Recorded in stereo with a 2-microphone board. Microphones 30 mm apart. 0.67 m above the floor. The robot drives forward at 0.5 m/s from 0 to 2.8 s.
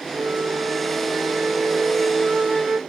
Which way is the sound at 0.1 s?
55° right (ahead or behind).